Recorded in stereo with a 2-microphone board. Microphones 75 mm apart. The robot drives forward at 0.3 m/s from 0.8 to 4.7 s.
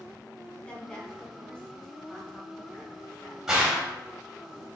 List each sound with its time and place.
0.6 s a woman speaking: 15° left (ahead or behind), 3.5 m; by 3.4 s 10° left (ahead or behind), 4 m
3.5 s a gunshot: 5° right (ahead or behind), 2 m